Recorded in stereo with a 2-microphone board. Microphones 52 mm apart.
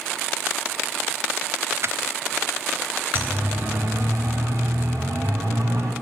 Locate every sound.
1.8 s crushing: 55° right (ahead or behind), 0.8 m
3.1 s a siren: 40° right (ahead or behind), 4 m; by 5.9 s 70° right (ahead or behind), 4.5 m